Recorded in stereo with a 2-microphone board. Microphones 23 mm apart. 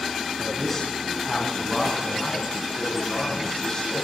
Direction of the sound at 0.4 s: Centre (ahead or behind).